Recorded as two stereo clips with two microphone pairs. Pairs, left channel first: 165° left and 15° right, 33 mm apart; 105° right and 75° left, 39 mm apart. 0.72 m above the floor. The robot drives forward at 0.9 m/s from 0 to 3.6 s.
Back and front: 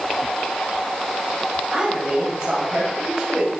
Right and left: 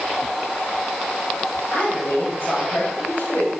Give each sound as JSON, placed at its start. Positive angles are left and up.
{"t": 1.7, "sound": "a woman speaking", "azimuth_deg": -65, "distance_m": 5.0}